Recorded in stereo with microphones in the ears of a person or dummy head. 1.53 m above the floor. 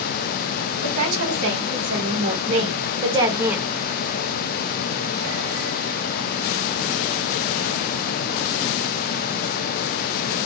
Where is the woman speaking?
65° right (ahead or behind), 1.9 m; by 3.7 s centre (ahead or behind), 0.8 m.